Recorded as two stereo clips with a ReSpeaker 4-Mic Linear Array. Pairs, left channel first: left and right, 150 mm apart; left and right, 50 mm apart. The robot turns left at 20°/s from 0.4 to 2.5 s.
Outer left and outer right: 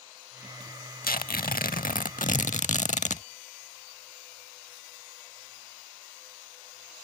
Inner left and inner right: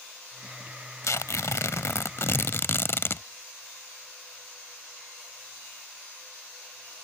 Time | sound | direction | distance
1.0 | tearing paper | 85° left | ?